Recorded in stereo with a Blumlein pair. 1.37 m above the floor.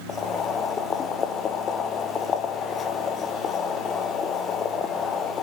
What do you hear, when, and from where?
0.1 s boiling: 25° left, 0.6 m